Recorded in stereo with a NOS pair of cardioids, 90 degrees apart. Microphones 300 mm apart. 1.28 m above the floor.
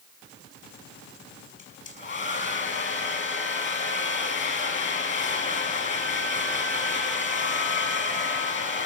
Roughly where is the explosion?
I don't hear an explosion.